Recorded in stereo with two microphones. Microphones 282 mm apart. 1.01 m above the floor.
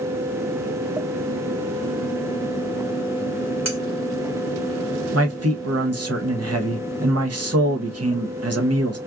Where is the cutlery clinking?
70° right (ahead or behind), 1.3 m.